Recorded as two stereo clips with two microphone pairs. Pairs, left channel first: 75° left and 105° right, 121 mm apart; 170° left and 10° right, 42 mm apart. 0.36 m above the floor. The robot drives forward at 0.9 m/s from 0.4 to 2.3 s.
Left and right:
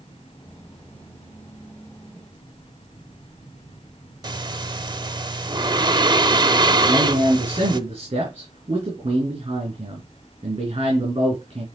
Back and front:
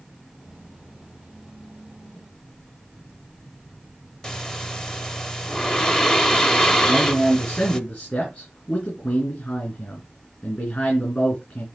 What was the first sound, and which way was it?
Breathing, 125° right.